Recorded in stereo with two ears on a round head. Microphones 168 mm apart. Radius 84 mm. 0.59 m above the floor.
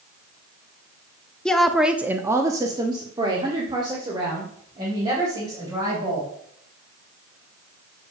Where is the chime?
I don't hear a chime.